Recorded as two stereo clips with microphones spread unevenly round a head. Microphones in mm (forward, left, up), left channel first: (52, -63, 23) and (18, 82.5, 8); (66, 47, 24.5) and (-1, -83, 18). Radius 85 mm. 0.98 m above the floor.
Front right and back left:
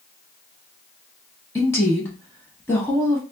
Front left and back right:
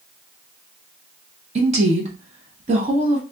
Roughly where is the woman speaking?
Behind right.